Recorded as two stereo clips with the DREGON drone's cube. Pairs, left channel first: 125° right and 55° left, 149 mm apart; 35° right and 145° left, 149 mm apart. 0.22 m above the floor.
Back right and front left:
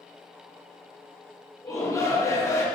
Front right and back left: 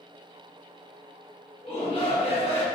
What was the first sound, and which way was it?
A shout, 65° right.